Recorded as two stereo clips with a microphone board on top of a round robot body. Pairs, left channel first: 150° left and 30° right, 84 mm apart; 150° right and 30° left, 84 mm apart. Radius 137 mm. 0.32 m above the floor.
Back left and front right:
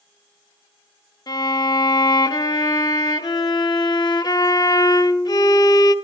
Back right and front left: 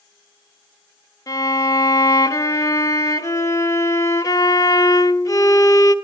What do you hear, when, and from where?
1.3 s a violin: 170° left, 1.6 m